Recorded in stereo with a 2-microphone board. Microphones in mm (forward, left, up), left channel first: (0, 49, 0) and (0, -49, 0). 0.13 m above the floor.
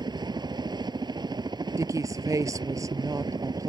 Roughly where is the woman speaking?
Right.